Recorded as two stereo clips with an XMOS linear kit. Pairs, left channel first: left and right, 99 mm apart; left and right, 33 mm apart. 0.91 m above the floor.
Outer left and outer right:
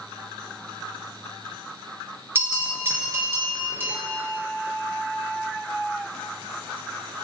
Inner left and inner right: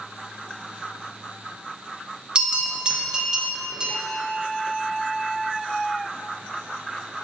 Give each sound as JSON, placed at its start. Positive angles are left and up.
{"t": 2.4, "sound": "a bell", "side_deg": -25, "distance_m": 1.0}